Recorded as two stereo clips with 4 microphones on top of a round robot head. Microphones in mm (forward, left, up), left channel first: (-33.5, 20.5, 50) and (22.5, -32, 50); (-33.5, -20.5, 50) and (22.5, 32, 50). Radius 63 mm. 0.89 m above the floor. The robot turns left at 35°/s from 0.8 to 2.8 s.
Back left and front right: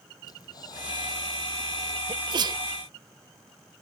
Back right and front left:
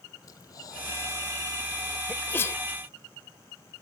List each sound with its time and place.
0.2 s breathing: straight behind; by 2.0 s 135° left
2.1 s a sneeze: 65° right; by 2.6 s 80° right